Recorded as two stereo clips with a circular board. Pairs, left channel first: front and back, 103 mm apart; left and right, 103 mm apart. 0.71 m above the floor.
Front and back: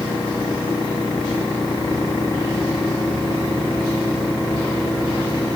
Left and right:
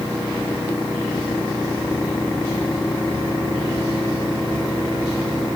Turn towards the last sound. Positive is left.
No sound to turn to.